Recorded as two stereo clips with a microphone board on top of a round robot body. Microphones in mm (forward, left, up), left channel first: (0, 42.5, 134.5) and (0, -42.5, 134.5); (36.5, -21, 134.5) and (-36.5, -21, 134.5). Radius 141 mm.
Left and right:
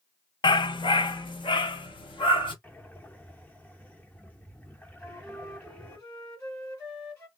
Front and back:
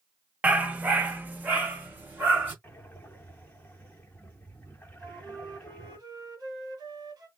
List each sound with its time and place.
0.4 s a dog barking: 110° left, 0.5 m; by 2.5 s 115° left, 1.6 m
2.6 s breathing: 45° left, 1.3 m
5.0 s a flute: 140° left, 2.5 m